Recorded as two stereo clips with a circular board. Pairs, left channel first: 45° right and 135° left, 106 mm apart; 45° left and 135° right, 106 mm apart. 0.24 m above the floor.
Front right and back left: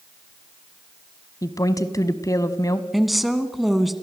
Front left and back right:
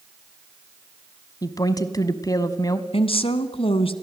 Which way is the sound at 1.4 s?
Straight ahead.